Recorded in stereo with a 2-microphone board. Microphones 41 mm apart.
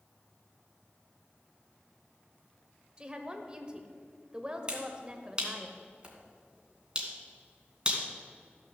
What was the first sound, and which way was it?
A woman speaking, 20° right (ahead or behind).